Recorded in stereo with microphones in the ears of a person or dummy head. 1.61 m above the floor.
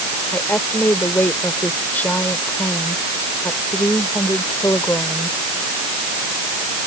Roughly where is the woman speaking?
Centre.